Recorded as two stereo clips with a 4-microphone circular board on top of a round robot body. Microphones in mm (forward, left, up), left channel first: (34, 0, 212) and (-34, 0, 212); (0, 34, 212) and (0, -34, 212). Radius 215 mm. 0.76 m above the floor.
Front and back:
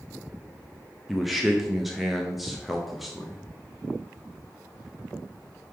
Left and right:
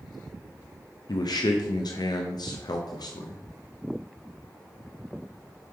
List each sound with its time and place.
1.1 s a man speaking: 90° left, 0.9 m